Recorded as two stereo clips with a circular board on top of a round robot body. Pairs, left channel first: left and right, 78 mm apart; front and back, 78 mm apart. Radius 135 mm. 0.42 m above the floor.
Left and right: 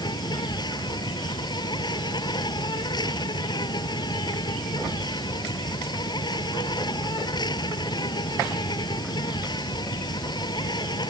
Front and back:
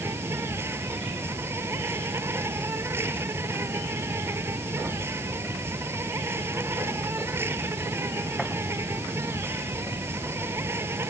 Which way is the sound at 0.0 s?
120° left.